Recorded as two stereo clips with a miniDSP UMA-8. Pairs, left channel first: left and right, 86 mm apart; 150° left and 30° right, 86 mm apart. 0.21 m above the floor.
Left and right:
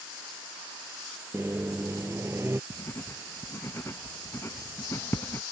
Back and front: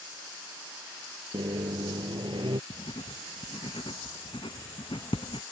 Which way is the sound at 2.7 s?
150° left.